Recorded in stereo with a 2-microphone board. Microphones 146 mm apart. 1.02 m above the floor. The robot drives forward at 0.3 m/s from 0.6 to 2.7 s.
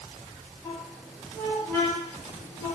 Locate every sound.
0.6 s a squeak: 15° left (ahead or behind), 1.2 m; by 2.8 s 30° left (ahead or behind), 0.7 m